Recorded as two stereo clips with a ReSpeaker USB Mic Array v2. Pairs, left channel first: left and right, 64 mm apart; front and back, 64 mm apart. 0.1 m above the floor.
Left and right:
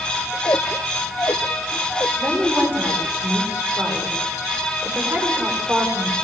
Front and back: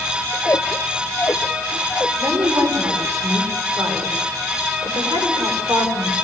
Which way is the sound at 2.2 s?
155° right.